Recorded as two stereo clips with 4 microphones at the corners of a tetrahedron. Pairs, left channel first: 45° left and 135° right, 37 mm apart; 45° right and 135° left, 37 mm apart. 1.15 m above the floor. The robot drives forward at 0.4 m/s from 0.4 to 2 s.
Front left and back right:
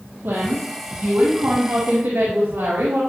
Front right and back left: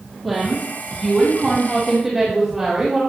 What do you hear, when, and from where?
0.2 s a woman speaking: 130° right, 2.5 m; by 3.0 s 140° right, 3 m